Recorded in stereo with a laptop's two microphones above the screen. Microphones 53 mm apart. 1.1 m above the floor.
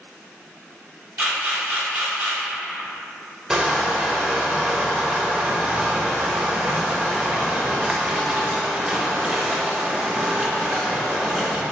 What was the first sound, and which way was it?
A camera shutter, 35° right (ahead or behind).